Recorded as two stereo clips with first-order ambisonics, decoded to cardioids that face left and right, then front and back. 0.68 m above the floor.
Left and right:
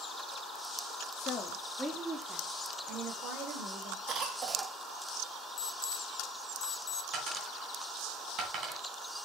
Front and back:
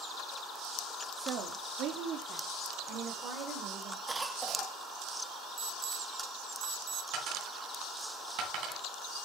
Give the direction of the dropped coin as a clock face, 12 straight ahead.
5 o'clock.